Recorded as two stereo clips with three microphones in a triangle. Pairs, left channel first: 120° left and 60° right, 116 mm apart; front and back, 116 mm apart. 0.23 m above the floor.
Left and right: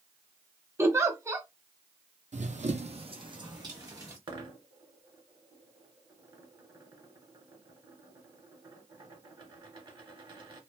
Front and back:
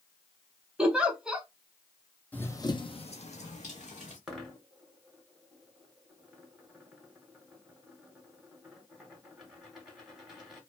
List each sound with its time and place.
0.8 s a giggle: 105° right, 0.5 m
2.3 s running footsteps: 75° right, 0.5 m; by 4.2 s 5° left, 1.2 m
4.3 s a dropped coin: 95° right, 0.9 m